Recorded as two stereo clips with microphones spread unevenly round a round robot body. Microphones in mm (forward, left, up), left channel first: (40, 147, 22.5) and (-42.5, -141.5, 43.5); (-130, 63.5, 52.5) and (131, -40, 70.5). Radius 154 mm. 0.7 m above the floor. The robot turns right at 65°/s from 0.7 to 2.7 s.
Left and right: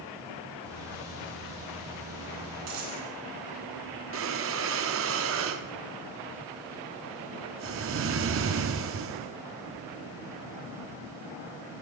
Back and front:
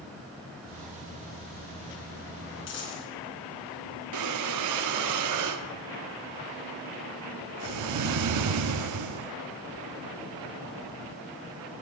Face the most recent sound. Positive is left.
turn(degrees=-55)